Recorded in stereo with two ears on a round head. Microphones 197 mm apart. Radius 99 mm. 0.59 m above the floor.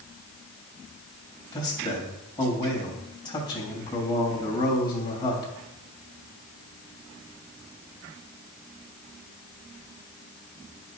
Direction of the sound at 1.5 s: 20° left (ahead or behind).